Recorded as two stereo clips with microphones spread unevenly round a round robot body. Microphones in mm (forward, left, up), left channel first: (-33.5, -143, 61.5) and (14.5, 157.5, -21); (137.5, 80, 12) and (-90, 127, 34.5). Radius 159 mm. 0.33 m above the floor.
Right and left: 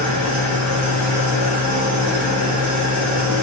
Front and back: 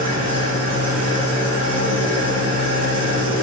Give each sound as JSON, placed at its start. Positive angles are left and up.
{"t": 0.0, "sound": "an engine running", "azimuth_deg": 150, "distance_m": 4.0}